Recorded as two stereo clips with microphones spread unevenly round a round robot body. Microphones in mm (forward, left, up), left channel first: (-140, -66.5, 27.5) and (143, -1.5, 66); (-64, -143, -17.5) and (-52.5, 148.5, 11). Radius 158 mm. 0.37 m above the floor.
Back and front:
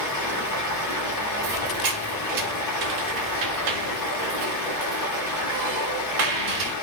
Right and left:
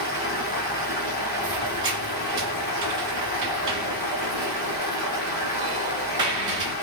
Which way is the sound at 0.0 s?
150° right.